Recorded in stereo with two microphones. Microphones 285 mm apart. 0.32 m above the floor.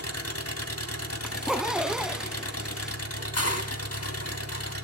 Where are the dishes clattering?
65° left (ahead or behind), 1.4 m.